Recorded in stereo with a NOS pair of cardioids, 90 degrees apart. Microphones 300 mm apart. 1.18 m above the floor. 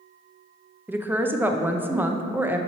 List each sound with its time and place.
0.9 s a woman speaking: 5° right, 0.7 m